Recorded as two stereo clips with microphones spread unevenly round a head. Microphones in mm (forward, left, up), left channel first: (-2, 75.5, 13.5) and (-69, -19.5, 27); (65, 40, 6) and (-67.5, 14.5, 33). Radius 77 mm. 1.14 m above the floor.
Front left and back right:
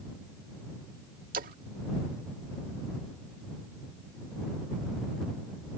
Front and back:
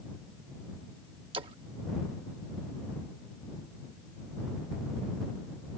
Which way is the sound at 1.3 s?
110° right.